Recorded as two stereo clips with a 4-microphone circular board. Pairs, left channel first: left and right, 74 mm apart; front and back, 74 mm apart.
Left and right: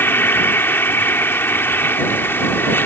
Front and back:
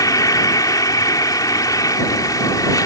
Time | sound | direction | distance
0.0 | an insect | 30° left | ?